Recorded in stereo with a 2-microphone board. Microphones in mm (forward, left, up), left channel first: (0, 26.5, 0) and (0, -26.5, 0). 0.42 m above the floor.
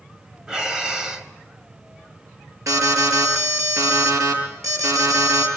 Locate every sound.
0.5 s breathing: 15° right (ahead or behind), 1.6 m
2.7 s an alarm: 75° right (ahead or behind), 7.5 m